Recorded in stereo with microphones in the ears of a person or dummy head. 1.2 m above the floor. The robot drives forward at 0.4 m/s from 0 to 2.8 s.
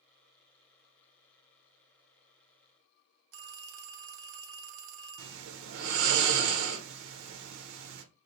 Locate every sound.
3.3 s a phone ringing: 70° right (ahead or behind), 0.5 m
5.2 s snoring: 75° right (ahead or behind), 0.5 m